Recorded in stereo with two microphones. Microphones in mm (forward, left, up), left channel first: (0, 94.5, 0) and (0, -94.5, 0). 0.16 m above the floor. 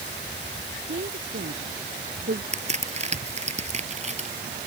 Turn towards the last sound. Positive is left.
turn(degrees=-35)  # may be behind; listen again after turning